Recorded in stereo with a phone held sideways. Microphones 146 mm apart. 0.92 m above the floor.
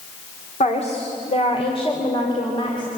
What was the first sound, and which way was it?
A woman speaking, 50° left (ahead or behind).